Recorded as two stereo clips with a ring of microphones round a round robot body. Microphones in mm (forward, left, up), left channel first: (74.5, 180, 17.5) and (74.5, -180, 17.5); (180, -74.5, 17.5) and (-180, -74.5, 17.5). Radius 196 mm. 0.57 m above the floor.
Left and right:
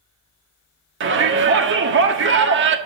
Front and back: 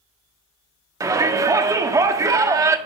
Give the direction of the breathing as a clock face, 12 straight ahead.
I don't hear breathing.